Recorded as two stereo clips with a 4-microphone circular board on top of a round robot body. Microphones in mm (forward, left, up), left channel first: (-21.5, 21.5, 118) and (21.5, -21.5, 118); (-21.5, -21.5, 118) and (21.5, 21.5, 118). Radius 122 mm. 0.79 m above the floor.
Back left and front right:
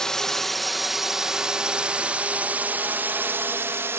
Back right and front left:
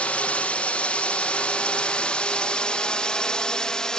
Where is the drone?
155° right; by 4.0 s 60° right.